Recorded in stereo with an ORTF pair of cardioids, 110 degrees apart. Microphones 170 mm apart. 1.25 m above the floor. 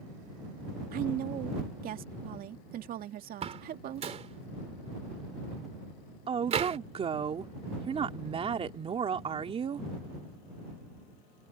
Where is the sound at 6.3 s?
35° right.